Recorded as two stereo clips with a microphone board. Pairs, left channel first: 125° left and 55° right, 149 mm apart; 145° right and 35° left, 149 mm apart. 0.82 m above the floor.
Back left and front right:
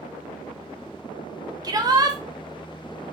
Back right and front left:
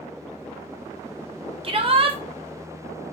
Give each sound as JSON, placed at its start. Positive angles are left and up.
{"t": 1.6, "sound": "a shout", "azimuth_deg": 0, "distance_m": 0.5}